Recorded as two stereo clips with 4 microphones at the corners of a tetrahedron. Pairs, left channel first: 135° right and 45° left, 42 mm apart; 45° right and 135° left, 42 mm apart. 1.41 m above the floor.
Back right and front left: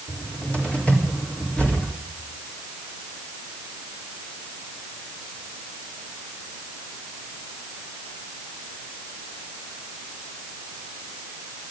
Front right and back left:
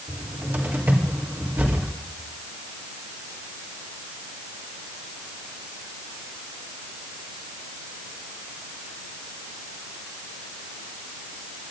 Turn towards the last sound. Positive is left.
turn(degrees=165)